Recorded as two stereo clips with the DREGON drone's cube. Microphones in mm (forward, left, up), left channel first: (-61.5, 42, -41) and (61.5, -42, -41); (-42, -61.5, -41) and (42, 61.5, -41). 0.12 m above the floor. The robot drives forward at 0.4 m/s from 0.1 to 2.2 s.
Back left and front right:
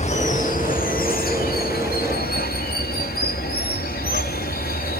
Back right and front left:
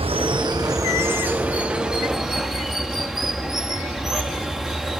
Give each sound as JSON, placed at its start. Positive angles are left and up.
{"t": 0.0, "sound": "running water", "azimuth_deg": 105, "distance_m": 0.8}